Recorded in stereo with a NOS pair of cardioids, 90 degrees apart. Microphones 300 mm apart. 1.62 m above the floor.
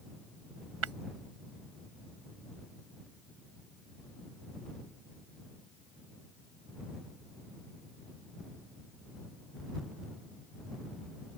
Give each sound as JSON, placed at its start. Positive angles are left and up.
{"t": 0.8, "sound": "breaking glass", "azimuth_deg": -50}